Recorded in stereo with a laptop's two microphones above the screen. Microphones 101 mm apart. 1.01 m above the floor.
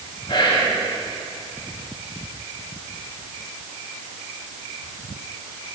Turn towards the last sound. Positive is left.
turn(degrees=50)  # may be behind; listen again after turning